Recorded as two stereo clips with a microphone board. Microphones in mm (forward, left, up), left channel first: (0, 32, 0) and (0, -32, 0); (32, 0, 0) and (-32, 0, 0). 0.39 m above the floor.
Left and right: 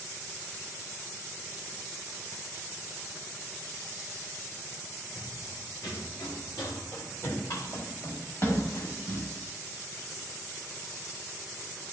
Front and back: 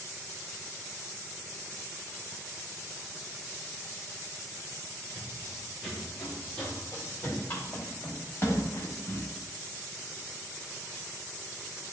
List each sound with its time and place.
5.1 s running footsteps: 95° left, 4 m; by 9.3 s 50° left, 7.5 m